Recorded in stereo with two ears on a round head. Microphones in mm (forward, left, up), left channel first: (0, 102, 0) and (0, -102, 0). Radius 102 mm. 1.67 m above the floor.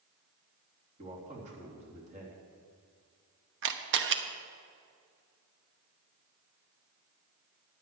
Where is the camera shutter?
55° right (ahead or behind), 1.0 m.